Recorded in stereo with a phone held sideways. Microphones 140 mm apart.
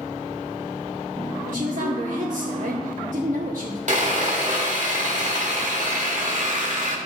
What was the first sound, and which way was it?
A woman speaking, 70° right (ahead or behind).